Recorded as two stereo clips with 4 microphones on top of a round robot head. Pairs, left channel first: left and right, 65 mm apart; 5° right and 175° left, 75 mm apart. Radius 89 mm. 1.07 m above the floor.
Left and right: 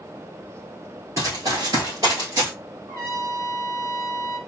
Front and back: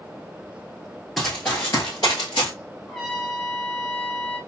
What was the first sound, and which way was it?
Running footsteps, 90° right.